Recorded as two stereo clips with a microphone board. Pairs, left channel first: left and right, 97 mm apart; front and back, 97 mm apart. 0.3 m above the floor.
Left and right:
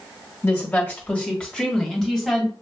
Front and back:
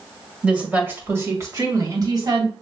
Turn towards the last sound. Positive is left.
turn(degrees=180)